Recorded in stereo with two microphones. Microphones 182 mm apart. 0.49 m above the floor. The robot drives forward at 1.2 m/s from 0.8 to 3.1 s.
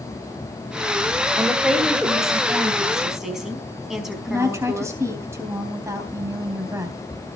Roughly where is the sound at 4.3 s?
Centre.